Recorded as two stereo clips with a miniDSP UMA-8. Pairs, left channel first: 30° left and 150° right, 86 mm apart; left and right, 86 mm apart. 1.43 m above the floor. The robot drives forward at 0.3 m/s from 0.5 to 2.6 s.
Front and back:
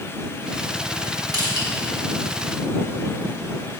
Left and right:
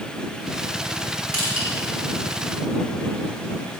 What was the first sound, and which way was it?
Crushing, 105° right.